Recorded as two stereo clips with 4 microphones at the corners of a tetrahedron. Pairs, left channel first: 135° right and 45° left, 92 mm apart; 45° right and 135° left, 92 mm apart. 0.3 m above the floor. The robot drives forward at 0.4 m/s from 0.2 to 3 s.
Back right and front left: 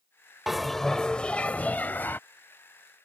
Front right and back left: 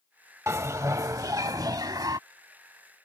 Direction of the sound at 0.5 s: 130° left.